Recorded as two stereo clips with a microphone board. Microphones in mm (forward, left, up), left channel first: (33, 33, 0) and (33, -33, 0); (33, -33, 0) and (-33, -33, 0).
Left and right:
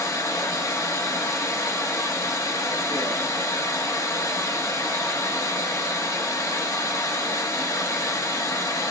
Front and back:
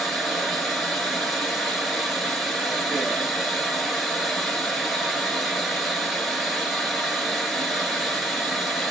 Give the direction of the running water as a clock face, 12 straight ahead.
9 o'clock.